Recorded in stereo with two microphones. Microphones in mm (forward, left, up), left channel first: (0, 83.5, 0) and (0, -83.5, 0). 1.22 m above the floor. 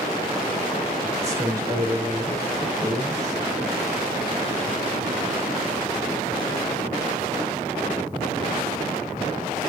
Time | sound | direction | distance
1.2 | a man speaking | 20° right (ahead or behind) | 4.5 m